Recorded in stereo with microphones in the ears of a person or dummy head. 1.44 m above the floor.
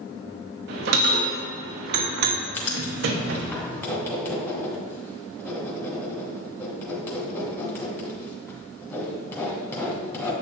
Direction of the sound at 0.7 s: 65° right (ahead or behind).